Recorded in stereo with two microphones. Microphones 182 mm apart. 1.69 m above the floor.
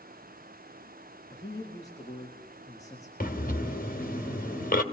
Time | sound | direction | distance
1.3 | a man speaking | 20° left (ahead or behind) | 4 m
3.2 | breathing | 50° left (ahead or behind) | 2 m